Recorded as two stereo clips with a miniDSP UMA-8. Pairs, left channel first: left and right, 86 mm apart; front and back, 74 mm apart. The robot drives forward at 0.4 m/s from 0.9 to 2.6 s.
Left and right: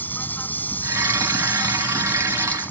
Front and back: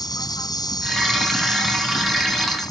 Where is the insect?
20° left; by 2.7 s 25° left.